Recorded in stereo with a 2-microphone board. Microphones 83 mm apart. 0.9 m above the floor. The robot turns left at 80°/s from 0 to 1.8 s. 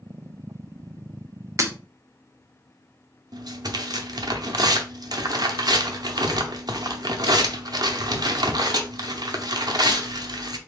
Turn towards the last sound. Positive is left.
turn(degrees=-55)  # may be behind; listen again after turning